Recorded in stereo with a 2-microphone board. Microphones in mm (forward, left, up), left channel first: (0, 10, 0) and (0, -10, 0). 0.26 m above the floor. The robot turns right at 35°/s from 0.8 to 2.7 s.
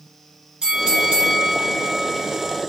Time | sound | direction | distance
0.6 | a bell | 115° right | 2 m